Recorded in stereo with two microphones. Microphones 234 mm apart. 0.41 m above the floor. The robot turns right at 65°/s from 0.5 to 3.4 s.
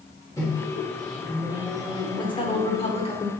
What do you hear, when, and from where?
0.4 s a microwave: 15° left (ahead or behind), 1.1 m; by 3.0 s 20° right (ahead or behind), 1.1 m
2.2 s a woman speaking: 20° left (ahead or behind), 0.8 m